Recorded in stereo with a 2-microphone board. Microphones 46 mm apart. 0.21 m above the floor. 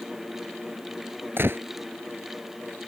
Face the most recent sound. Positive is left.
turn(degrees=-50)  # may be behind; listen again after turning